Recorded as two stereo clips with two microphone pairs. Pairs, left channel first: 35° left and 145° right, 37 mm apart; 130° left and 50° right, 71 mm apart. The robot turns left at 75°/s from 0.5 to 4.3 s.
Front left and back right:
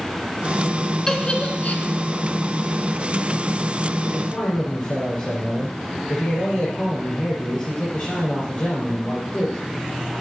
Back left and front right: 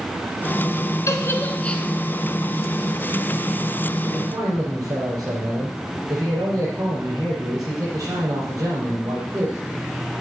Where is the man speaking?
5° left, 5 m; by 9.6 s 15° right, 5 m.